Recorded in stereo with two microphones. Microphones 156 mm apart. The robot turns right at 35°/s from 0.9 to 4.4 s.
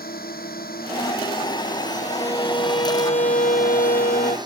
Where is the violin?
20° left; by 4.4 s 100° left.